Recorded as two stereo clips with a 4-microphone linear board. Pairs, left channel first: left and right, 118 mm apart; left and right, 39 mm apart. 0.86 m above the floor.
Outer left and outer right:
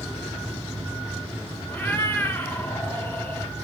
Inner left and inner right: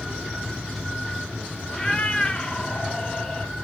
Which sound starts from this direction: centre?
A cat meowing, at 1.7 s.